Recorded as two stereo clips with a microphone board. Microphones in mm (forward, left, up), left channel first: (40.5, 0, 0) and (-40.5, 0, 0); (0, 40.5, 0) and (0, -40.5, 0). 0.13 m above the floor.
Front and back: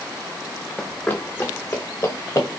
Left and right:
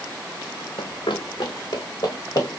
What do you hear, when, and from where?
0.8 s running footsteps: 80° left, 0.9 m; by 2.6 s 45° left, 2 m